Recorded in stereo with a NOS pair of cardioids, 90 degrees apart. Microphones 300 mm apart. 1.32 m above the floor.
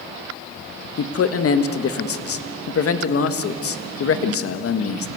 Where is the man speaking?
50° left, 1.6 m.